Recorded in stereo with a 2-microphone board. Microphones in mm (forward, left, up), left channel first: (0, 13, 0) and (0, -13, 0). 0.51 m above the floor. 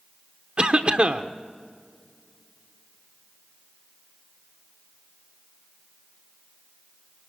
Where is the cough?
40° right (ahead or behind), 0.9 m.